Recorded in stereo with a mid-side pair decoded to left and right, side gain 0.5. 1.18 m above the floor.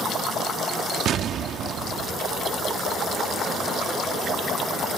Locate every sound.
1.1 s an explosion: 60° right